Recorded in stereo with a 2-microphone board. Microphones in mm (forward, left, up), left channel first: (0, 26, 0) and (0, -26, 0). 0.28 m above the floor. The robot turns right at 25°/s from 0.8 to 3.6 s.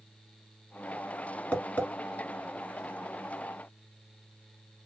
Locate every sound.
1.5 s tapping: 25° left (ahead or behind), 1.4 m; by 1.9 s 35° left (ahead or behind), 1.4 m